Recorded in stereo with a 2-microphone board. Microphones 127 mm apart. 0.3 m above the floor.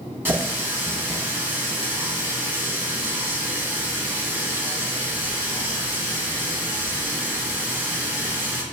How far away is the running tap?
About 1.4 m.